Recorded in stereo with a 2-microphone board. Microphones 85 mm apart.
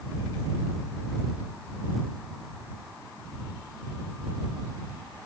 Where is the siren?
No siren in this recording.